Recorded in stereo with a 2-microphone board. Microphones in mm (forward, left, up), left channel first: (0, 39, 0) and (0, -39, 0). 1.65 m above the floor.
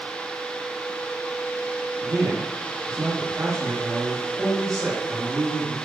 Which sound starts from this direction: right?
A man speaking, at 2.0 s.